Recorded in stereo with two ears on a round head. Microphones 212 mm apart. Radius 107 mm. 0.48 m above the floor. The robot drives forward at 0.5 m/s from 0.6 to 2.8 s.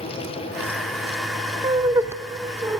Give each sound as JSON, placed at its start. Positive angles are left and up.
{"t": 1.6, "sound": "laughter", "side_deg": -15, "distance_m": 0.7}